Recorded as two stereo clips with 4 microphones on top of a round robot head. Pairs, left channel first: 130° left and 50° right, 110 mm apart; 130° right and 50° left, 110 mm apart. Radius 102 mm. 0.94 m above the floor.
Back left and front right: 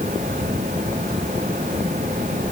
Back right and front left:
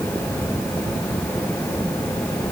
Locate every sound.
Only background noise.